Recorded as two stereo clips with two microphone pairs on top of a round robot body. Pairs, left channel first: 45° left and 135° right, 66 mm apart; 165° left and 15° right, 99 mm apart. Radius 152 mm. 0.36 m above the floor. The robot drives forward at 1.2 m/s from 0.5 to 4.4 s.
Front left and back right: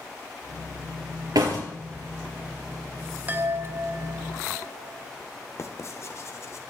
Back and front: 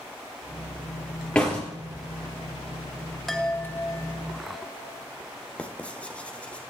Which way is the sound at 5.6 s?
85° left.